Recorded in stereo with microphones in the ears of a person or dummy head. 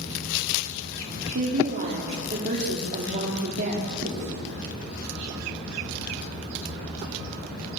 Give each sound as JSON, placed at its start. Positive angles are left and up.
{"t": 1.4, "sound": "a woman speaking", "side_deg": -45, "distance_m": 4.0}
{"t": 4.0, "sound": "writing", "side_deg": -50, "distance_m": 6.0}